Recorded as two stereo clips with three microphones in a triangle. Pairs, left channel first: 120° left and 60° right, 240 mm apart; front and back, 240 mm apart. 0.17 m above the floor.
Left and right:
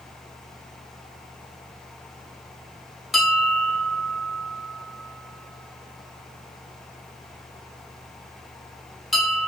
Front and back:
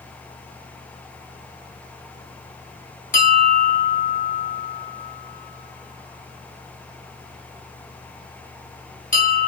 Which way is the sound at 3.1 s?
30° left.